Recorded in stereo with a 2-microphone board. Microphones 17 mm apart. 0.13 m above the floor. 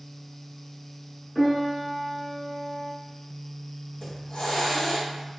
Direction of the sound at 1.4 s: 5° left (ahead or behind).